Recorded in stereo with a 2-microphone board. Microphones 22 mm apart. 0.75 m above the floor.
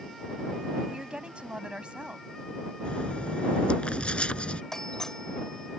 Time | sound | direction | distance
0.9 | a woman speaking | 50° right (ahead or behind) | ?
2.9 | writing | 55° left (ahead or behind) | ?
4.7 | a doorbell | 20° left (ahead or behind) | ?